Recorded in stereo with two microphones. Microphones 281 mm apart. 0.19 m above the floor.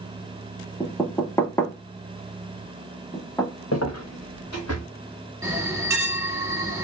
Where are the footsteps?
65° left (ahead or behind), 0.9 m.